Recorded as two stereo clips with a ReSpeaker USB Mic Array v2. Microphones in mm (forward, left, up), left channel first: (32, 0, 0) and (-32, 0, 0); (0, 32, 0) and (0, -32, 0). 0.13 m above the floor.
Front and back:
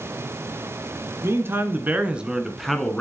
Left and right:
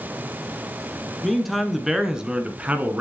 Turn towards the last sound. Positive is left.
turn(degrees=-65)